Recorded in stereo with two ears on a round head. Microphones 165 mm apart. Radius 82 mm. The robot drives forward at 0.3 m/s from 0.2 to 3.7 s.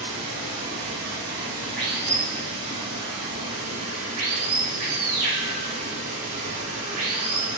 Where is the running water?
60° right (ahead or behind), 1.9 m; by 7.6 s 50° right (ahead or behind), 2 m.